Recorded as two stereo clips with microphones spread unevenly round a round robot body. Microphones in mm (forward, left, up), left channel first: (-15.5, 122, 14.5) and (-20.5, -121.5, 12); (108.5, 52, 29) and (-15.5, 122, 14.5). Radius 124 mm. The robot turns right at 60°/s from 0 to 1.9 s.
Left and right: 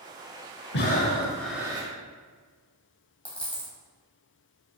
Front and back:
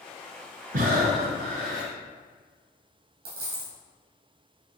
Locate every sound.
0.7 s breathing: 135° left, 0.7 m; by 1.9 s 160° right, 0.7 m
3.2 s a dropped coin: 175° left, 1.6 m